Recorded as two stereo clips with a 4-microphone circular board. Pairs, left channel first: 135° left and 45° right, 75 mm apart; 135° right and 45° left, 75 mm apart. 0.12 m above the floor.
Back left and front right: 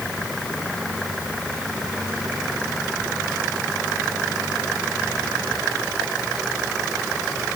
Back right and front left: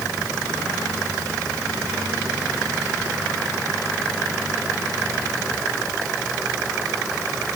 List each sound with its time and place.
Only background noise.